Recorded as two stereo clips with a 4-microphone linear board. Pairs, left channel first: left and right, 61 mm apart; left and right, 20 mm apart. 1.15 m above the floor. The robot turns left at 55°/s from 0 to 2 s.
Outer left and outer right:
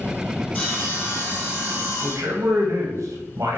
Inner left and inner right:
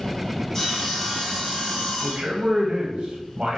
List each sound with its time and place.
0.5 s sawing: 160° left, 1.7 m; by 2.7 s 80° left, 1.7 m
2.0 s a man speaking: 60° right (ahead or behind), 0.7 m